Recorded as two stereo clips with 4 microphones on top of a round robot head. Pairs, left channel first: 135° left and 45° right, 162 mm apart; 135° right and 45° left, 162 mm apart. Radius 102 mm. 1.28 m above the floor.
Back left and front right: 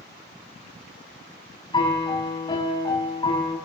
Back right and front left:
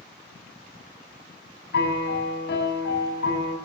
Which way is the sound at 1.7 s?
160° right.